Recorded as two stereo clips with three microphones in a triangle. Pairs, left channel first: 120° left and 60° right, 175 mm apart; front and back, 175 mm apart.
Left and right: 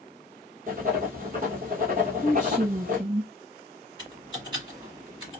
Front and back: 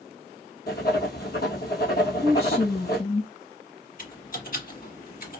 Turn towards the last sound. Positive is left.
turn(degrees=-5)